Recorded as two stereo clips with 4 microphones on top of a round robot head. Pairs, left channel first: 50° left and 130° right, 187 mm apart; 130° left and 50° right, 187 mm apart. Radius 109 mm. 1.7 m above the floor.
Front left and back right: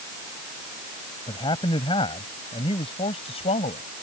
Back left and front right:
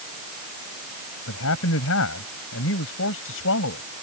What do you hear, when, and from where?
1.3 s a man speaking: 120° left; by 3.8 s 110° left